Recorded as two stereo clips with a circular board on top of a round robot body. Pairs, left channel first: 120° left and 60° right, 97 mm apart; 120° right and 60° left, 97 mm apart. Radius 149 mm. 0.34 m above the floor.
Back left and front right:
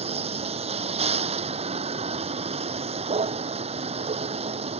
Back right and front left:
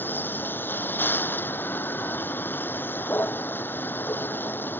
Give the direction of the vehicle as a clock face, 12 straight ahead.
2 o'clock.